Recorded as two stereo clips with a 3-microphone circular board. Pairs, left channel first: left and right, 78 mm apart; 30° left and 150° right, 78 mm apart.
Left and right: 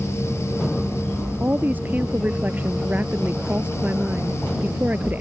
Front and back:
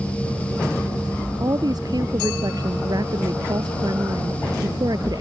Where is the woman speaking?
155° right.